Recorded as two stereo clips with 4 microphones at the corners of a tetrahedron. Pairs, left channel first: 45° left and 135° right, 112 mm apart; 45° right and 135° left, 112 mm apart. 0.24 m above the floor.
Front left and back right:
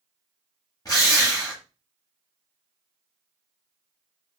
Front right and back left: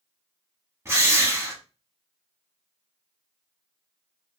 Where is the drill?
85° left, 1.0 m.